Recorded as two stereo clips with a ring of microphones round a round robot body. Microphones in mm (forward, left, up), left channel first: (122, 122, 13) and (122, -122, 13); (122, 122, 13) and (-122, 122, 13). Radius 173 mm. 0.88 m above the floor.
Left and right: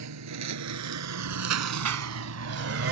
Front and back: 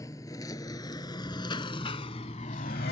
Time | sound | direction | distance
0.0 | a lawn mower | 80° right | ?